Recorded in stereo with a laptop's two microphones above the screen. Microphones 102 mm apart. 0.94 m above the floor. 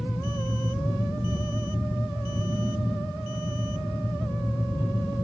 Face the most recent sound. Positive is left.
turn(degrees=-20)  # may be behind; listen again after turning